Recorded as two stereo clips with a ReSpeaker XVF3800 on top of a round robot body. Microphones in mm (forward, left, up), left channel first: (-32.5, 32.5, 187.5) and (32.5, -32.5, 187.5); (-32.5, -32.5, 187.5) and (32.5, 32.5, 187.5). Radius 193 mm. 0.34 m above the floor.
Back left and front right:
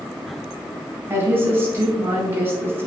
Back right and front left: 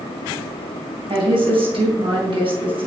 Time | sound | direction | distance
1.1 | a woman speaking | 20° left | 4 m